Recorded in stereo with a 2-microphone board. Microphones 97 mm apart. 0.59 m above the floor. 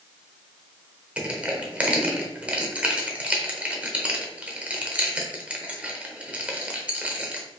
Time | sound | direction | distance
1.2 | crushing | 15° right (ahead or behind) | 0.8 m